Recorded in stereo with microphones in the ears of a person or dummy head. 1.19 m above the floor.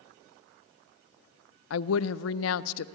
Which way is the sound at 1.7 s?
85° left.